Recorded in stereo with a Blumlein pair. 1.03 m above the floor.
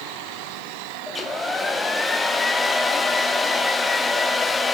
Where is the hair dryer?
10° left, 1.0 m.